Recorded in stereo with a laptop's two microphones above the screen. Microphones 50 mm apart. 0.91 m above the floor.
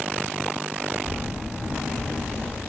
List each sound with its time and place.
1.1 s footsteps: 25° right (ahead or behind), 1.0 m; by 2.6 s 20° left (ahead or behind), 1.0 m